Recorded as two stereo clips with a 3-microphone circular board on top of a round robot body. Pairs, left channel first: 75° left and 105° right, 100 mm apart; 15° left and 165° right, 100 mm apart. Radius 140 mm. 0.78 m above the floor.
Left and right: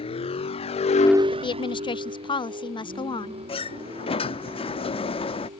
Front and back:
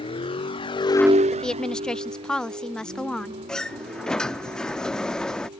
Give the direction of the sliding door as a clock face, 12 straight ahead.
9 o'clock.